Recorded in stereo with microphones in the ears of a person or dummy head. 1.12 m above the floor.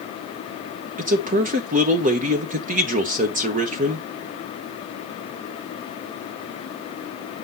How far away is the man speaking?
About 0.9 m.